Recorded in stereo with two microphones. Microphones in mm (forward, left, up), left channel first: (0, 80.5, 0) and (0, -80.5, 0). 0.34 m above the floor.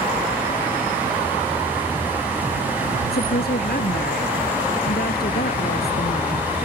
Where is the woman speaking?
75° left (ahead or behind).